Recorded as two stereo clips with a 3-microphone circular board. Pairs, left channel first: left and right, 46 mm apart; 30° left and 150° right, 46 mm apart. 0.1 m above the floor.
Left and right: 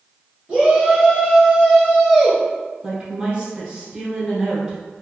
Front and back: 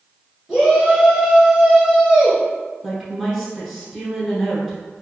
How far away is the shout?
About 1.6 m.